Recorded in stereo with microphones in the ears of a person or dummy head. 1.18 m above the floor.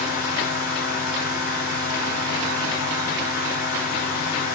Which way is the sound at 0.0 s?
50° left (ahead or behind).